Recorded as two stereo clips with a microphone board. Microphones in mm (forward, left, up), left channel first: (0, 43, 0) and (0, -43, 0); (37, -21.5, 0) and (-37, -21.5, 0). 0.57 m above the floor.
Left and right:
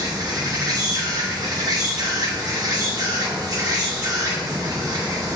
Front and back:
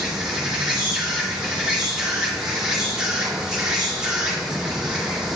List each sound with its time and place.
0.0 s an insect: 105° right, 1.7 m